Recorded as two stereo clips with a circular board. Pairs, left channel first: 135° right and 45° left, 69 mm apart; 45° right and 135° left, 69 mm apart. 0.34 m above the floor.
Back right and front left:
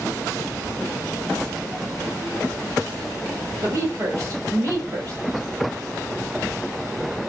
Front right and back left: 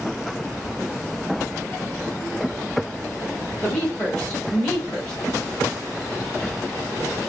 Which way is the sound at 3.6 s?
30° left.